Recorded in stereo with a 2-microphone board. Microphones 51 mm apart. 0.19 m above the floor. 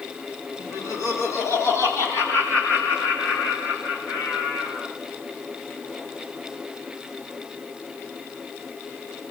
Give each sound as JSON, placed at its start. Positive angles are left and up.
{"t": 0.6, "sound": "laughter", "side_deg": 80, "distance_m": 7.0}